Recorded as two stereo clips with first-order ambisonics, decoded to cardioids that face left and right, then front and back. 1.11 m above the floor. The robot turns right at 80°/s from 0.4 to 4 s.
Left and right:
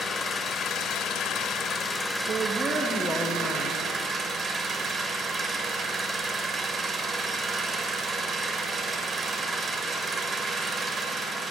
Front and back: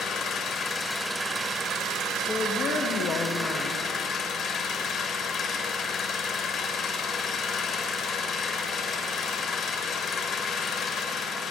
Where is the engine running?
35° left, 1.0 m; by 11.5 s 40° right, 1.0 m.